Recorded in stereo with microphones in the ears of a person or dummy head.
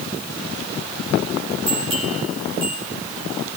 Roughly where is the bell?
Right.